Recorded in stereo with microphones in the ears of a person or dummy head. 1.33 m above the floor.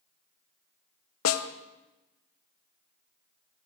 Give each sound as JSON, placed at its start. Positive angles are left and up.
{"t": 1.2, "sound": "a snare drum", "side_deg": 75, "distance_m": 1.0}